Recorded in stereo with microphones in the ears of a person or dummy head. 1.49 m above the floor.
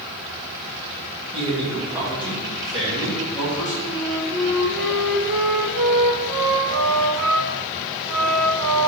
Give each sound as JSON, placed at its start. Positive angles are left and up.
{"t": 1.3, "sound": "a man speaking", "side_deg": -35, "distance_m": 1.4}
{"t": 3.9, "sound": "a flute", "side_deg": -60, "distance_m": 0.6}